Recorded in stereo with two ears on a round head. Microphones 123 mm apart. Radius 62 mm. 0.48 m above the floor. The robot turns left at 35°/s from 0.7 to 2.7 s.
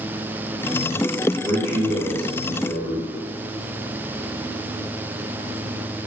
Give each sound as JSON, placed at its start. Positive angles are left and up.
{"t": 1.4, "sound": "a man speaking", "azimuth_deg": 175, "distance_m": 1.4}